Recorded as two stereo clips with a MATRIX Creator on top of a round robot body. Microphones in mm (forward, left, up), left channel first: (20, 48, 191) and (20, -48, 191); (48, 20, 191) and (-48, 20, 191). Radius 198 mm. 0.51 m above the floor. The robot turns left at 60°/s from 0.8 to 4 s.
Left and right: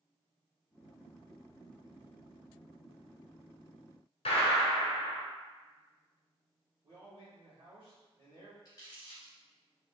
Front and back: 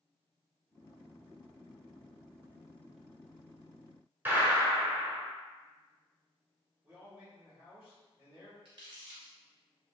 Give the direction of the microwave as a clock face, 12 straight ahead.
I don't hear a microwave.